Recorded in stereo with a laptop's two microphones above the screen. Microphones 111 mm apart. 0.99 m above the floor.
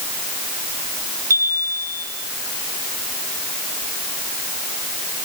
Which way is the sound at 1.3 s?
30° right (ahead or behind).